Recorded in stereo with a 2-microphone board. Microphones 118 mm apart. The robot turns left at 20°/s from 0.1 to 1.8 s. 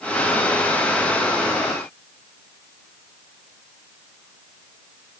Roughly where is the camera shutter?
I don't hear a camera shutter.